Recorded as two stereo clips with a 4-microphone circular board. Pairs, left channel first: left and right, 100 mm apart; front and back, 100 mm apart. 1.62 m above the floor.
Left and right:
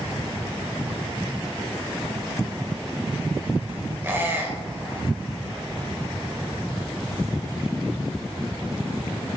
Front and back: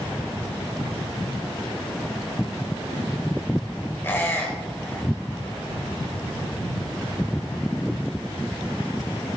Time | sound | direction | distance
4.0 | a squeak | 45° right | 1.5 m